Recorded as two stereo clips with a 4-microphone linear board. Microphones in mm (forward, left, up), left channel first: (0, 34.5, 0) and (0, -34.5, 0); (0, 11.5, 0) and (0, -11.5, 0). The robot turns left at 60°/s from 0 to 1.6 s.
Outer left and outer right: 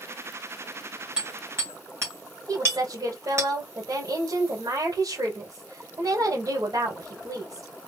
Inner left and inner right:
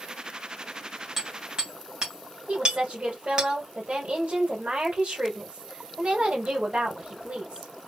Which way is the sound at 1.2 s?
15° right (ahead or behind).